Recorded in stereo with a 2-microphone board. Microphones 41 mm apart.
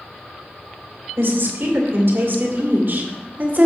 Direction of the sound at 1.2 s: 70° right (ahead or behind).